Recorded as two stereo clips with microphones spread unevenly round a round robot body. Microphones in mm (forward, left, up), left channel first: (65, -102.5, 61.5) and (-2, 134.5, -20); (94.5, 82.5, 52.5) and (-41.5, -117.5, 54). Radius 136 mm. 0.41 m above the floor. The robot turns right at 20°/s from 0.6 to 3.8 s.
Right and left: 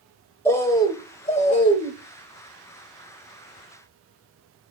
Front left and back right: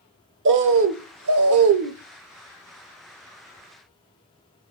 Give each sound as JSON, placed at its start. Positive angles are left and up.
{"t": 0.5, "sound": "a bird", "azimuth_deg": -165, "distance_m": 0.6}